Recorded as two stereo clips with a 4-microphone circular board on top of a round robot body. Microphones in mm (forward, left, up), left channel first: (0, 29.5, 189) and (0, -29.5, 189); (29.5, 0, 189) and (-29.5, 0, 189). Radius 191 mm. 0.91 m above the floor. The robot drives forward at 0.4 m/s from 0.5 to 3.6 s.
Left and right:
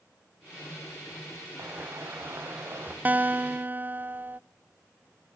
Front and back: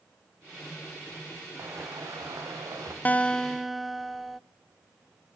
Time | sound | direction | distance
1.6 | footsteps | 140° right | 4.5 m
3.0 | a guitar | 45° right | 0.6 m